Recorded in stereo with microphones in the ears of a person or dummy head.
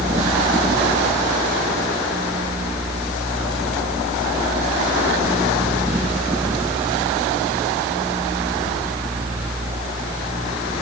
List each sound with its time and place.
Only background noise.